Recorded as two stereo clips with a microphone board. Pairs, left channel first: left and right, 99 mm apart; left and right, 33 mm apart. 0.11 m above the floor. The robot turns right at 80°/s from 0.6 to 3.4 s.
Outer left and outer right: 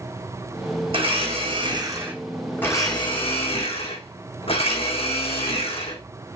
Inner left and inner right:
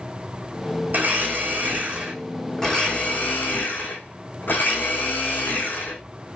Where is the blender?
120° right, 3 m; by 6.0 s 80° left, 3 m.